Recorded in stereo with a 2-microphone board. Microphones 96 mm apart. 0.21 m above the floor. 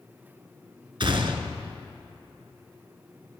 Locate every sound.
1.0 s a gunshot: 60° right (ahead or behind), 0.9 m